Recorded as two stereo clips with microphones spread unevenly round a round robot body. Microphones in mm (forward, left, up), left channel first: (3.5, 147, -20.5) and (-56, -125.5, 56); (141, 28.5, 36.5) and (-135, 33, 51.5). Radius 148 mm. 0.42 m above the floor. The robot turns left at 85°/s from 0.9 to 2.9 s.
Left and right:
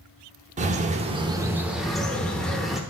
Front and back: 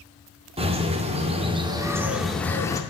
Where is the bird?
165° right, 0.7 m; by 2.8 s 35° left, 0.7 m.